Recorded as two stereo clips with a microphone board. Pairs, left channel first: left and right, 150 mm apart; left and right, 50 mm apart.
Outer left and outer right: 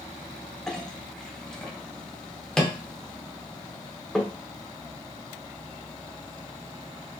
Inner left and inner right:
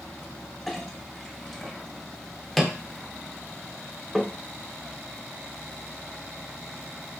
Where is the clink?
5° left (ahead or behind), 0.7 m.